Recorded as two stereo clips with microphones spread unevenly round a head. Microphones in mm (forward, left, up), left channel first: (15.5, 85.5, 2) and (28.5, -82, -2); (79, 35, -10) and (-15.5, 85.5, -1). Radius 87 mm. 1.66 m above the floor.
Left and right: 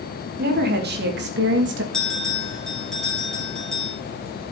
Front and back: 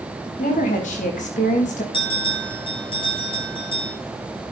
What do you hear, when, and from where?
0.4 s a woman speaking: 55° right, 3.5 m; by 1.8 s 70° right, 2.5 m
1.9 s a bell: 10° left, 7 m